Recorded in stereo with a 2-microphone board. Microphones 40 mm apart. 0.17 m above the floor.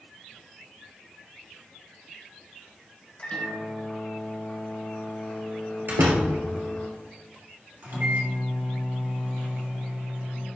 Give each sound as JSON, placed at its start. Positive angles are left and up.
{"t": 3.2, "sound": "a microwave", "side_deg": 30, "distance_m": 1.7}
{"t": 5.9, "sound": "a door slam", "side_deg": -55, "distance_m": 1.9}
{"t": 7.8, "sound": "a microwave", "side_deg": -55, "distance_m": 2.5}